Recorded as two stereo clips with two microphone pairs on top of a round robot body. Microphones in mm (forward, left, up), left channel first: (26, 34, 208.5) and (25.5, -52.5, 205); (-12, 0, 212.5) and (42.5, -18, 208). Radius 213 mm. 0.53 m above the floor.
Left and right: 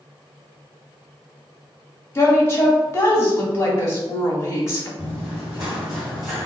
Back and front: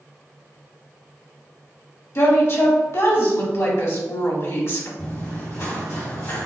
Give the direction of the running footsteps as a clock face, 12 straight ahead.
5 o'clock.